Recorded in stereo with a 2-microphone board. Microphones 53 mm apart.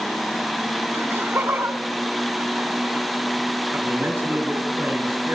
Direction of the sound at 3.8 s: 45° right (ahead or behind).